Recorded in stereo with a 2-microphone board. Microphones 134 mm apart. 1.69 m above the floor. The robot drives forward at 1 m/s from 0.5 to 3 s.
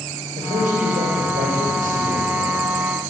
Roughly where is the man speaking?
Right.